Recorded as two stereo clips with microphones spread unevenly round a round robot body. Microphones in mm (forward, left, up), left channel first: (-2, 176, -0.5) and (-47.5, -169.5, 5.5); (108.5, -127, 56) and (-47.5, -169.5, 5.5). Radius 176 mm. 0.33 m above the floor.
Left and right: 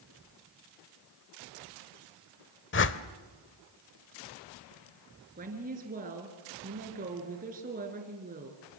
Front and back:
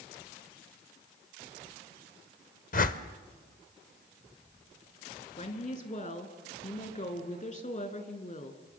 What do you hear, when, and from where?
2.7 s a whoosh: 50° left, 0.9 m
5.4 s a woman speaking: 30° right, 4 m